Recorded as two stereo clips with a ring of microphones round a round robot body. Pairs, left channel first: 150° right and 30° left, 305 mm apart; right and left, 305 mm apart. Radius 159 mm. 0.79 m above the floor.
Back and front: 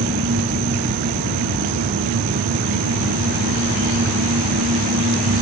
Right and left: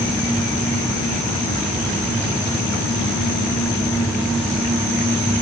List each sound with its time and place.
Only background noise.